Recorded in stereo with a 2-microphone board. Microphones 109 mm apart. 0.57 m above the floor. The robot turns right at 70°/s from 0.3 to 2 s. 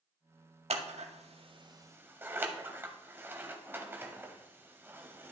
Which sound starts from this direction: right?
Scissors, at 0.7 s.